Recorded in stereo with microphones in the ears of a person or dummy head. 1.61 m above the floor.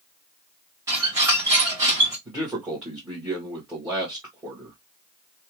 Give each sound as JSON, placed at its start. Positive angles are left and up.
{"t": 0.9, "sound": "a squeak", "side_deg": -20, "distance_m": 1.1}
{"t": 2.2, "sound": "a man speaking", "side_deg": -10, "distance_m": 1.1}